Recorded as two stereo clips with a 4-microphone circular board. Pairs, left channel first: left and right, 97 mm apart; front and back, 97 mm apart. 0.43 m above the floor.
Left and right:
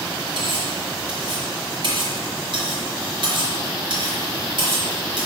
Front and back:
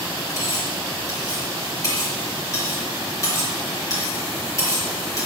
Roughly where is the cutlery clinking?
Ahead right.